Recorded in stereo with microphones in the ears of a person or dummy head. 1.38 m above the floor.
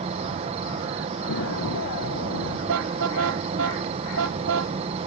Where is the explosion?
80° left.